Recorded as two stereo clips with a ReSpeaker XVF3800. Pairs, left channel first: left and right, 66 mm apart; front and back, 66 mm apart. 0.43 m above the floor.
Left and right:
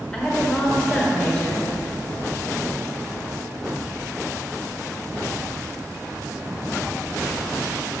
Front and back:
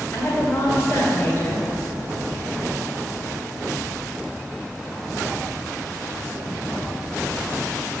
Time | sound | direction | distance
0.1 | a woman speaking | 25° left | 1.7 m